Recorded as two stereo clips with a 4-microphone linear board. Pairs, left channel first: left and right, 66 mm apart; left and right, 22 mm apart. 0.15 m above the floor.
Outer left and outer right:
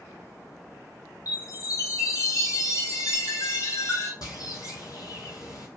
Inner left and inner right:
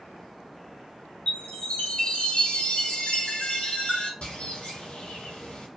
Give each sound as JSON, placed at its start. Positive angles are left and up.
{"t": 1.3, "sound": "a chime", "side_deg": 60, "distance_m": 0.9}
{"t": 4.2, "sound": "a bird", "side_deg": 75, "distance_m": 0.9}